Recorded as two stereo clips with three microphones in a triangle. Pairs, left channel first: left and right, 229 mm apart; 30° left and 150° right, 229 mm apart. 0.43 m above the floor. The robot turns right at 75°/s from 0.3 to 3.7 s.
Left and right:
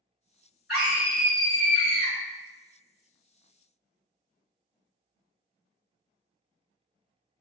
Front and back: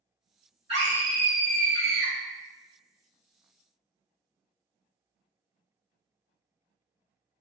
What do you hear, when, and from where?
0.7 s a scream: 175° right, 1.6 m; by 2.1 s 65° right, 1.6 m